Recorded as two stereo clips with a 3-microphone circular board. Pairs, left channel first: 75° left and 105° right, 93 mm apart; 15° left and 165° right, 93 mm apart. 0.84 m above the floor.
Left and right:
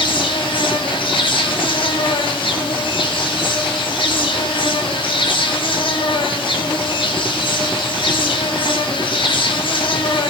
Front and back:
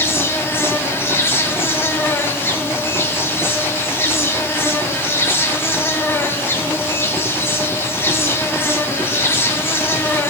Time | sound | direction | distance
0.0 | an insect | 80° left | 1.2 m